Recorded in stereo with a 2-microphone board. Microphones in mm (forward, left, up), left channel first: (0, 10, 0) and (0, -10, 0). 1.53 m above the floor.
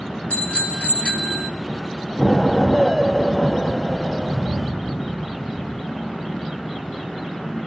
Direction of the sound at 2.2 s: 10° right (ahead or behind).